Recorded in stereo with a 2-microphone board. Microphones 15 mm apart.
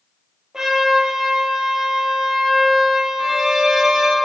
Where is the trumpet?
40° right (ahead or behind), 2.5 m.